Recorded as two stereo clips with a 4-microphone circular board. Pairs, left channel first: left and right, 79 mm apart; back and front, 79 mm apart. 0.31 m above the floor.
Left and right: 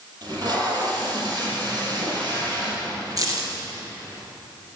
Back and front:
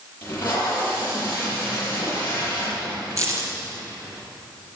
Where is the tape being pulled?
115° right, 6.5 m.